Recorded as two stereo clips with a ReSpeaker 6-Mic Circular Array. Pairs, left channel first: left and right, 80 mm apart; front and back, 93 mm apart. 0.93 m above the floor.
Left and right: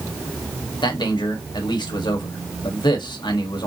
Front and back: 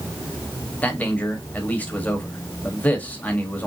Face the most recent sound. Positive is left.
turn(degrees=70)